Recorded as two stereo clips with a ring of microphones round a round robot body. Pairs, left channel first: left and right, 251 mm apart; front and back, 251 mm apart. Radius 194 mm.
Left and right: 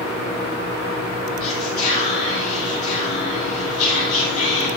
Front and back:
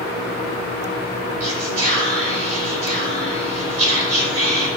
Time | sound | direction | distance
1.4 | whispering | 160° left | 4 m